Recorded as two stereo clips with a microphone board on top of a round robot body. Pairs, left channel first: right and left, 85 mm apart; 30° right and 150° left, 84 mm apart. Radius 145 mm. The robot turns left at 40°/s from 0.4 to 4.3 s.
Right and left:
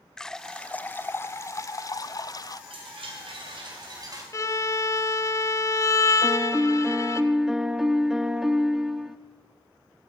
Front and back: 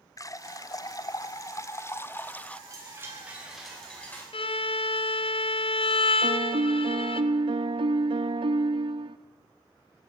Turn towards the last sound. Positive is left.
turn(degrees=175)